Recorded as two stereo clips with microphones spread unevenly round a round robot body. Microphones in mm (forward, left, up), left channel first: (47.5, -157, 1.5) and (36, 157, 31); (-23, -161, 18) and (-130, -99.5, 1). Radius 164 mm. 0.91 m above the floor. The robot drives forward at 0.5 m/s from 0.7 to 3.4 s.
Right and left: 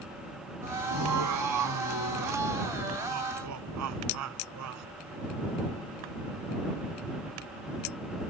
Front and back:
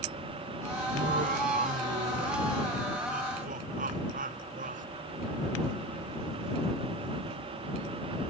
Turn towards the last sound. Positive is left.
turn(degrees=135)